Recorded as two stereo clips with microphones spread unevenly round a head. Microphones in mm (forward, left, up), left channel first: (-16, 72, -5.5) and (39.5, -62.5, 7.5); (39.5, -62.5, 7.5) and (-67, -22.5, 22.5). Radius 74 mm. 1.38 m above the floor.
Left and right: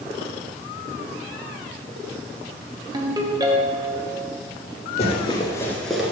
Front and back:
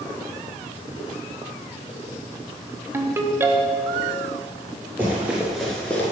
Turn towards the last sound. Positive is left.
turn(degrees=-80)